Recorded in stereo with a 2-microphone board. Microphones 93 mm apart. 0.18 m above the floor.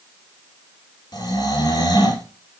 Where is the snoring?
45° left (ahead or behind), 4 m.